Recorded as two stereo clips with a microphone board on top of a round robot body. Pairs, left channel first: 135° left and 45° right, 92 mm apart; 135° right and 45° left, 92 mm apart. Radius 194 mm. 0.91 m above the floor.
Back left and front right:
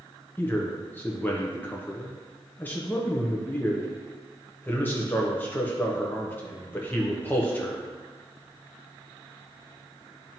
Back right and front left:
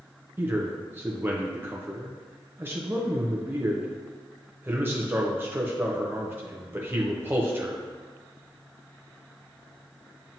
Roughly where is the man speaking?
Left.